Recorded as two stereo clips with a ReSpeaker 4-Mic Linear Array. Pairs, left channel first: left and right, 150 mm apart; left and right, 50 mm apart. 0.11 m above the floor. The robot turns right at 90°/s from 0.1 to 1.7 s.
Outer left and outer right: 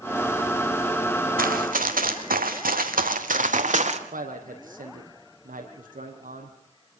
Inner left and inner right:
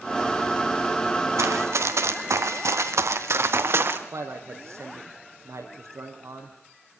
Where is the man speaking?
75° right (ahead or behind), 4.5 m.